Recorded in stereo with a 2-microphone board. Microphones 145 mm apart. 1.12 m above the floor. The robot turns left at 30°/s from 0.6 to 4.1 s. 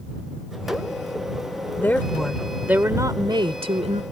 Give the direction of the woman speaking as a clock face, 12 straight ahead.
11 o'clock.